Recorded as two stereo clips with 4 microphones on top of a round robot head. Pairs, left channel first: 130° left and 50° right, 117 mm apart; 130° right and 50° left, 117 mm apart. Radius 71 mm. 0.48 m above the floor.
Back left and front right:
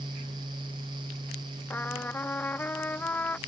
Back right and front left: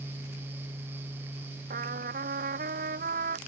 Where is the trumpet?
55° left.